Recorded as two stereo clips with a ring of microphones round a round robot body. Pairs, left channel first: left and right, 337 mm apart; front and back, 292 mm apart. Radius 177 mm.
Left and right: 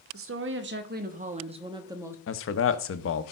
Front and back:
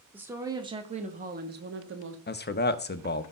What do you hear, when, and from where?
0.1 s a woman speaking: 100° right, 1.3 m; by 2.2 s 170° right, 1.4 m
2.3 s a man speaking: 50° left, 0.9 m